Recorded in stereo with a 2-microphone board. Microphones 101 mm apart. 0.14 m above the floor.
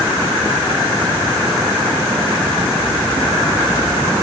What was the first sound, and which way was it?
Only background noise.